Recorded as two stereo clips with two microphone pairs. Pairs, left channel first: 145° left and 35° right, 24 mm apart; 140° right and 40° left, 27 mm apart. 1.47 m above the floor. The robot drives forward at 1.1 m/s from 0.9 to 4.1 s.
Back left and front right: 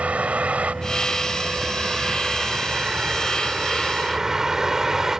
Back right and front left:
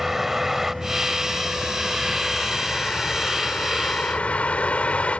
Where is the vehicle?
40° right; by 5.2 s 105° right.